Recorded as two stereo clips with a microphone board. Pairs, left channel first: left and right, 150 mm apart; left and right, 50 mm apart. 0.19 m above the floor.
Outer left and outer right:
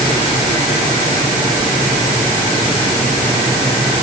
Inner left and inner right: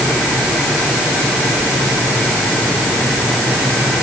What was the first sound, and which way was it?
Only background noise.